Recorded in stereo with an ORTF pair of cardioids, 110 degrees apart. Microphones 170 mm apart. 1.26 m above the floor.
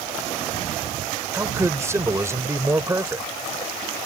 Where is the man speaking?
15° right.